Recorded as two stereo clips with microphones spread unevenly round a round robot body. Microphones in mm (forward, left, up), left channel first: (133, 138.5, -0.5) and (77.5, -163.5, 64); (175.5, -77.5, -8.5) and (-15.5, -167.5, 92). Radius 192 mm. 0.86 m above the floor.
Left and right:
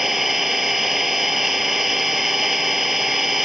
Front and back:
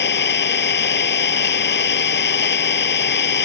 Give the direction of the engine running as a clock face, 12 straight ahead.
12 o'clock.